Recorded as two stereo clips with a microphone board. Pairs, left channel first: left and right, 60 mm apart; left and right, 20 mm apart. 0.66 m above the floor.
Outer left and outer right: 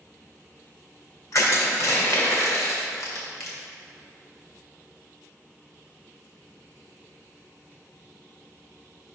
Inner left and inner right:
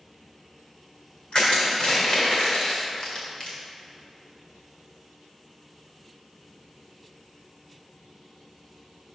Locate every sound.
1.3 s crushing: 60° left (ahead or behind), 1.9 m